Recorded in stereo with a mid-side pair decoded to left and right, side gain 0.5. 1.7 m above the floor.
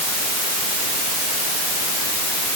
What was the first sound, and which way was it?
Only background noise.